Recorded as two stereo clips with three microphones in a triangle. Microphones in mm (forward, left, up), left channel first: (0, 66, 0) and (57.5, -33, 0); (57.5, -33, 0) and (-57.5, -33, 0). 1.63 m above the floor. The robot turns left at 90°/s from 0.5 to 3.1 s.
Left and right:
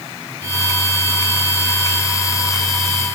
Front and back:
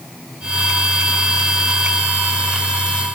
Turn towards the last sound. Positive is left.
No sound to turn to.